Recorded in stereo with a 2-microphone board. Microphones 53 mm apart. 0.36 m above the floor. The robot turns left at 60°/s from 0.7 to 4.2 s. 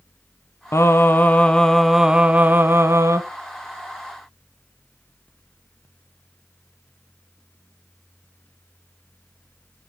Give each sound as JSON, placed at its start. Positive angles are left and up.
{"t": 0.7, "sound": "singing", "azimuth_deg": 70, "distance_m": 1.2}